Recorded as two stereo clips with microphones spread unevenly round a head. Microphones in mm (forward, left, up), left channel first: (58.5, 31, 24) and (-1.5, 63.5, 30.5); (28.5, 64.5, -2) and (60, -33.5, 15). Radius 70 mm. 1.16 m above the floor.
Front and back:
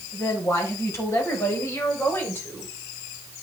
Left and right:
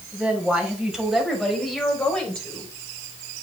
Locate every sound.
0.1 s a woman speaking: 10° left, 6 m; by 2.7 s 30° left, 4.5 m